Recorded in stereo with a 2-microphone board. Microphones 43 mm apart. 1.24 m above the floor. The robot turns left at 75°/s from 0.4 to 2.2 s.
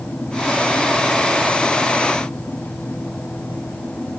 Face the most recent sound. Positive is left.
No sound to turn to.